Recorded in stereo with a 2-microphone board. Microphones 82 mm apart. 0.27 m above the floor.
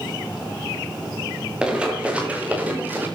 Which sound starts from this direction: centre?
Running footsteps, at 1.6 s.